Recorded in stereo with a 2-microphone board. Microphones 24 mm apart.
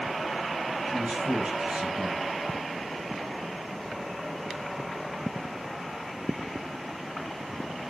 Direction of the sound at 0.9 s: 55° right (ahead or behind).